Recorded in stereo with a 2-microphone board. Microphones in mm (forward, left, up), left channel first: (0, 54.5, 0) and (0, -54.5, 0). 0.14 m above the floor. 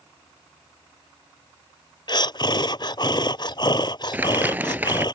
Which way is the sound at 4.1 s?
20° right (ahead or behind).